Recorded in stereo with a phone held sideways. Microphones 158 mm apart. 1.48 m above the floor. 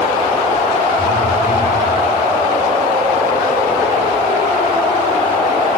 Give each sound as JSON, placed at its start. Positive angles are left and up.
{"t": 1.0, "sound": "a phone buzzing", "side_deg": 35, "distance_m": 4.5}